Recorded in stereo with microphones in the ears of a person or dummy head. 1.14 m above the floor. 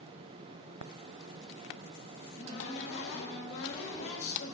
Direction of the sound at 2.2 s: 65° left (ahead or behind).